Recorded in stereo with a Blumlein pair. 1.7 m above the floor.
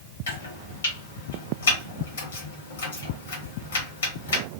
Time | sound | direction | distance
0.3 | chopping | 65° left | 1.2 m